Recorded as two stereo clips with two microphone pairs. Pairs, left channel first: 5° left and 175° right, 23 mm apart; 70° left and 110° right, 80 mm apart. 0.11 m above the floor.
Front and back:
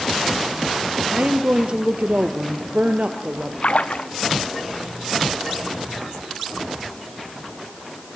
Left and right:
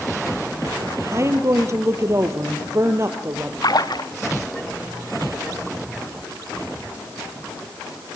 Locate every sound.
1.1 s a woman speaking: 150° right, 2 m
3.6 s a splash: 40° left, 1.5 m